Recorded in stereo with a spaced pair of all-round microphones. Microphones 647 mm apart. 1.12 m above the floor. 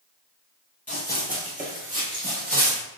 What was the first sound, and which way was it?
Running footsteps, 15° left (ahead or behind).